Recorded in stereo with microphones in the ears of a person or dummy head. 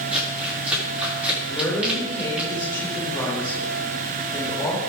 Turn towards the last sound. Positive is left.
turn(degrees=20)  # may be behind; listen again after turning